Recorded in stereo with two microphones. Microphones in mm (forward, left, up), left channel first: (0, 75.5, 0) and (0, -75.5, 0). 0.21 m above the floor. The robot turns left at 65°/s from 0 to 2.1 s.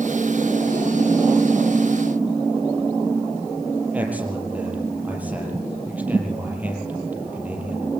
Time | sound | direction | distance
3.9 | a man speaking | 10° right (ahead or behind) | 6 m